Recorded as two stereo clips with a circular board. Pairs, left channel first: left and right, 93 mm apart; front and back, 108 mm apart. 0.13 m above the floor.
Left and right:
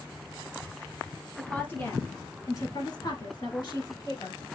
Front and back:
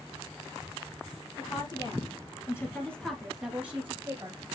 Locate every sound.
1.4 s a woman speaking: 20° left, 2.5 m; by 4.4 s 125° left, 2.5 m